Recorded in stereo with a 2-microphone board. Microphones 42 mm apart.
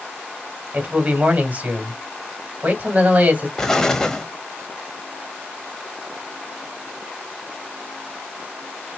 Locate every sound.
0.7 s a man speaking: 40° right (ahead or behind), 1.9 m
3.6 s an explosion: 10° left (ahead or behind), 0.9 m